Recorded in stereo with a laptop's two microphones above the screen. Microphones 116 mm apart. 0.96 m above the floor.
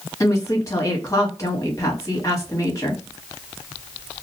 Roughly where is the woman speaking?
Left.